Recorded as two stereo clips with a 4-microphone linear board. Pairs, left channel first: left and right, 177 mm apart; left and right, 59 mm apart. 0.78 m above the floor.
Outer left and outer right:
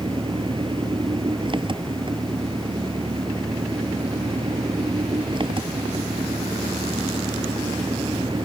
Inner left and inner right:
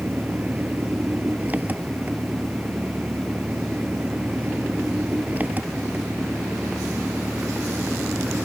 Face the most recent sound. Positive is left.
turn(degrees=-25)  # may be behind; listen again after turning